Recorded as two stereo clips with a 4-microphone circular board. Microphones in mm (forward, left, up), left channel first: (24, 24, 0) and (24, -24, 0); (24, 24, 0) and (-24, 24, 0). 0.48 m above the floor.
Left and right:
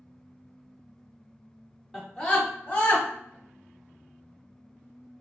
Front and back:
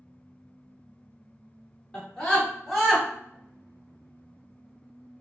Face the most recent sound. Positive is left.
turn(degrees=95)